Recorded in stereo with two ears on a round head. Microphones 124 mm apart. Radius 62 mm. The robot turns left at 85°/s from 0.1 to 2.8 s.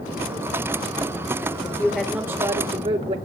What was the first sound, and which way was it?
A woman speaking, 30° left.